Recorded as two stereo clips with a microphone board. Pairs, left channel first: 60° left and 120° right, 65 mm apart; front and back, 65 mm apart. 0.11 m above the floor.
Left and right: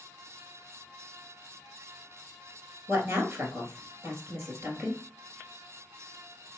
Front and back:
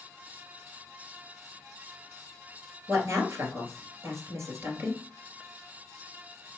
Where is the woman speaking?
155° right, 1.9 m.